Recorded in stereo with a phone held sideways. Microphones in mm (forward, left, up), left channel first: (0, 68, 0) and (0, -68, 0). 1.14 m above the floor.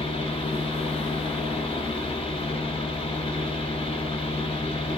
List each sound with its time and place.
0.0 s a fan: 45° left (ahead or behind), 1.7 m